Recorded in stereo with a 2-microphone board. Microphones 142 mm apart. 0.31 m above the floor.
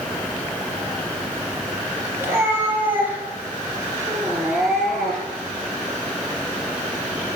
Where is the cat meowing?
15° right (ahead or behind), 4 m; by 5.5 s 5° left (ahead or behind), 4 m.